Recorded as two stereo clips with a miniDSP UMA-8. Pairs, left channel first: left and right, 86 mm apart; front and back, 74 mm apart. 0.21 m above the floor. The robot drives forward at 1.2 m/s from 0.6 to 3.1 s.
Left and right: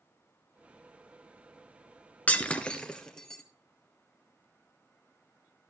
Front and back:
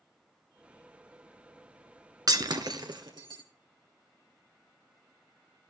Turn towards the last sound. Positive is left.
turn(degrees=170)